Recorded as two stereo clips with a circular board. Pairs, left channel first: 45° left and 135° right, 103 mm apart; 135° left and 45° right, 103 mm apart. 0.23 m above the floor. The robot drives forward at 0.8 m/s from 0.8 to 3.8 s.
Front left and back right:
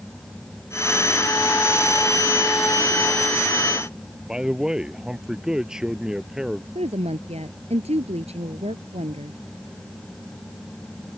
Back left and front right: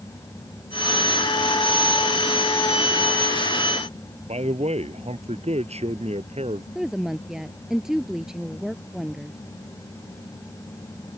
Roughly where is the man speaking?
Ahead right.